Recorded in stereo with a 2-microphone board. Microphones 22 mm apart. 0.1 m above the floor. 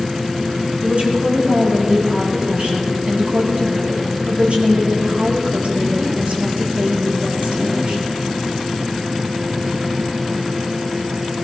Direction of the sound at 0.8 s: 75° right (ahead or behind).